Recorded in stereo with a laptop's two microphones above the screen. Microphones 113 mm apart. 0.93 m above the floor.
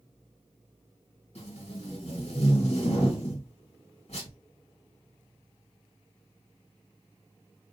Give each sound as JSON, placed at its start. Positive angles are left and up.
{"t": 1.4, "sound": "tape being pulled", "side_deg": 65, "distance_m": 1.5}